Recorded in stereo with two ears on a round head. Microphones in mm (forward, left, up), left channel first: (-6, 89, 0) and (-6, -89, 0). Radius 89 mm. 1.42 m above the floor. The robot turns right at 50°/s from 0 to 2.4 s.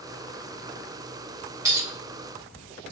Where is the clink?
15° right (ahead or behind), 0.8 m; by 1.9 s 10° right (ahead or behind), 0.8 m.